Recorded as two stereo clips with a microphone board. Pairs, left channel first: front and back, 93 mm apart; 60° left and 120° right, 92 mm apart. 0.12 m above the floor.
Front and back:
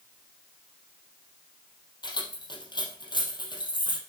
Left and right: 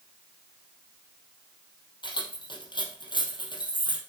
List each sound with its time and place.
2.0 s keys jangling: 30° left, 3 m